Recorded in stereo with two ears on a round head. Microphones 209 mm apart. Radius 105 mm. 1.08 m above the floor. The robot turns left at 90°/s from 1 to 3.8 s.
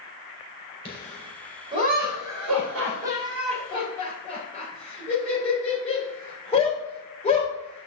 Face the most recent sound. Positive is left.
turn(degrees=30)  # may be behind; listen again after turning